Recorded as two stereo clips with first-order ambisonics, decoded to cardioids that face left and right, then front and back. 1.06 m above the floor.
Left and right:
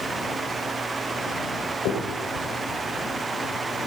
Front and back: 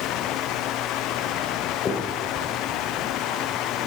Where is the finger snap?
65° left, 4 m.